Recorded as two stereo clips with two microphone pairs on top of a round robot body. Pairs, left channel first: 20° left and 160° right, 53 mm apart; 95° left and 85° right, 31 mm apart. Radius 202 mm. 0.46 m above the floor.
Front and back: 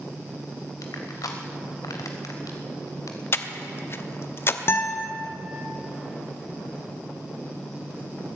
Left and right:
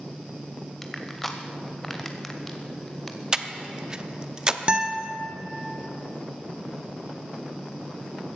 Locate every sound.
0.8 s crushing: 5° left, 0.5 m
3.3 s breathing: 20° right, 1.0 m
4.7 s a guitar: 25° right, 1.2 m